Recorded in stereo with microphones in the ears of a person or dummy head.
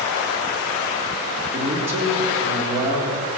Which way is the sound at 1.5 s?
15° right (ahead or behind).